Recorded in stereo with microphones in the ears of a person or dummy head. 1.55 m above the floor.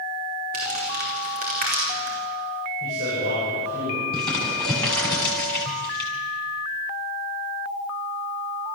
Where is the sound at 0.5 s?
45° right (ahead or behind), 4.5 m.